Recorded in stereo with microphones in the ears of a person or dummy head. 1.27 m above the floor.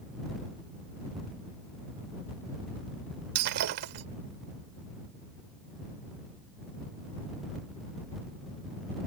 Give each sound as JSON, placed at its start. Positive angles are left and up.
{"t": 3.4, "sound": "breaking glass", "side_deg": -55}